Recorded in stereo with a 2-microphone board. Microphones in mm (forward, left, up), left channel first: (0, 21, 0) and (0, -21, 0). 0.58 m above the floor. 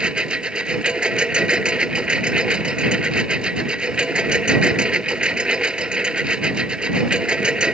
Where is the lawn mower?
20° right (ahead or behind).